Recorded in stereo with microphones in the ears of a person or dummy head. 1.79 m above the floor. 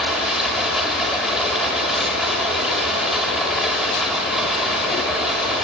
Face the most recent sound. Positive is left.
turn(degrees=0)  # may be behind; listen again after turning